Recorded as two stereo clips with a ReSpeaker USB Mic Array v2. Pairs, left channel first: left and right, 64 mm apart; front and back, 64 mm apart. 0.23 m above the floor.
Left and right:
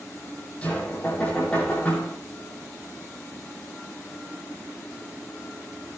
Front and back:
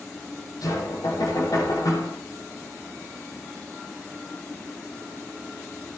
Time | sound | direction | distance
0.6 | knocking | 20° left | 6.5 m